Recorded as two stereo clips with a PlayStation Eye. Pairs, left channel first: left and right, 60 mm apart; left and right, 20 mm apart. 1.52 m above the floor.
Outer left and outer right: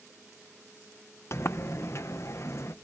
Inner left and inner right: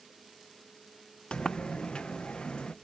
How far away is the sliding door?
About 0.8 m.